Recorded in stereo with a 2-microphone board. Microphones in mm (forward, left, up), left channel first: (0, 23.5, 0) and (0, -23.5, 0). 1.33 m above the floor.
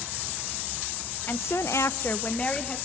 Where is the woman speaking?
50° left (ahead or behind), 0.8 m; by 2.8 s 20° left (ahead or behind), 1.4 m.